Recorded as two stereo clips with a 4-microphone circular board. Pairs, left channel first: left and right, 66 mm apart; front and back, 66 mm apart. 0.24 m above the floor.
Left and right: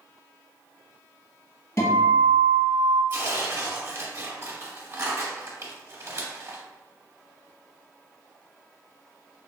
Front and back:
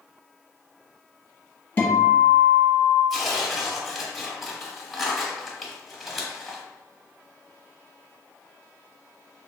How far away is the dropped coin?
No dropped coin in this recording.